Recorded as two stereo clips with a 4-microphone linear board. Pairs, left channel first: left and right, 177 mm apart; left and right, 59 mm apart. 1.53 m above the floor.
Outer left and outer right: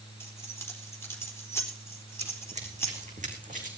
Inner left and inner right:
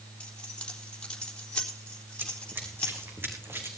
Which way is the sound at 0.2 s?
15° left (ahead or behind).